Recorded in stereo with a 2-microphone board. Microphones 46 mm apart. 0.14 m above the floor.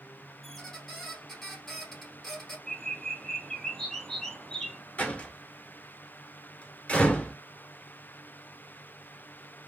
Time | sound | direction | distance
0.4 | a squeak | 5° left (ahead or behind) | 1.9 m
2.7 | a bird | 10° left (ahead or behind) | 1.0 m
5.0 | a door slam | 30° left (ahead or behind) | 1.6 m